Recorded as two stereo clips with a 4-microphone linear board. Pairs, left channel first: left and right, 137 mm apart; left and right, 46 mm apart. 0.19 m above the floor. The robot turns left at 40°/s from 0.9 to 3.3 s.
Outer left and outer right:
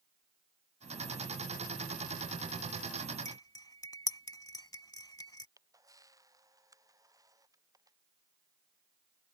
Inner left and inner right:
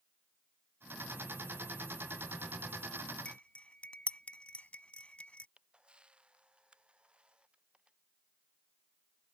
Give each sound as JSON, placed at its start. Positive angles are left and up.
{"t": 3.2, "sound": "cutlery clinking", "side_deg": 30}
{"t": 5.6, "sound": "a camera shutter", "side_deg": -25}